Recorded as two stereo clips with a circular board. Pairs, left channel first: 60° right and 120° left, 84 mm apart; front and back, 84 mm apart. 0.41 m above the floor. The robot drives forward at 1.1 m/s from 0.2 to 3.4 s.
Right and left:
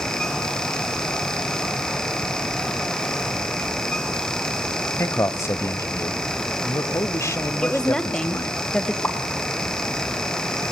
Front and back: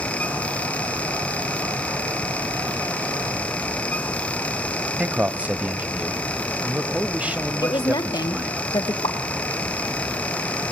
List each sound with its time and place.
5.0 s a man speaking: 110° right, 1.7 m
7.6 s a woman speaking: 20° left, 1.9 m
9.0 s a pop: 15° left, 1.6 m